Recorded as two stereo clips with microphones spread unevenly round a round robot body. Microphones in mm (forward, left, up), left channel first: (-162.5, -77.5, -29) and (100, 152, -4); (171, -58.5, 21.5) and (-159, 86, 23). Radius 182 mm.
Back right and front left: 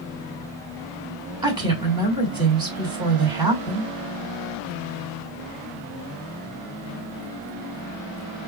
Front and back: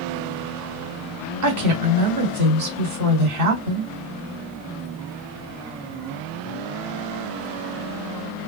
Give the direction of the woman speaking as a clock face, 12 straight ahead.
8 o'clock.